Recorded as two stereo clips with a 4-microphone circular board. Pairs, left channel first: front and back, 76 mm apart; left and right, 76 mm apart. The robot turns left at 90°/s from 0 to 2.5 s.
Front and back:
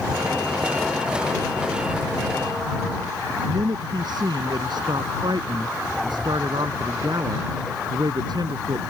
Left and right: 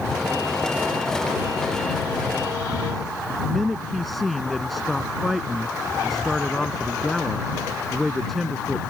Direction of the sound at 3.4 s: Straight behind.